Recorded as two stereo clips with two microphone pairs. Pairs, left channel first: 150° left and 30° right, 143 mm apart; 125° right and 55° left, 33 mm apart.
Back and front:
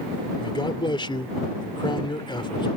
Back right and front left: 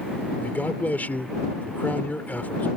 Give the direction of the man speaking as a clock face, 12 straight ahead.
5 o'clock.